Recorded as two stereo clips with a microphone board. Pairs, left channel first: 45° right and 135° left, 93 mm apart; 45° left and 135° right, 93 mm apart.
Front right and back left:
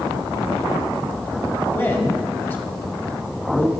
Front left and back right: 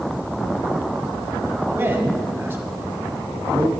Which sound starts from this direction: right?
A man speaking, at 1.7 s.